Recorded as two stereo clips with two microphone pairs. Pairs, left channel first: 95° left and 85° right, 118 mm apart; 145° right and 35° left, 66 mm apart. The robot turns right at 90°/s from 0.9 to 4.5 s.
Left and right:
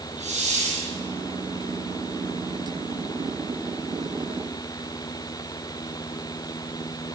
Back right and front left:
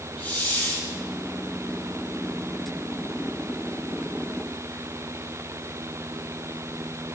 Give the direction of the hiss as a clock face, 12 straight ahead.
3 o'clock.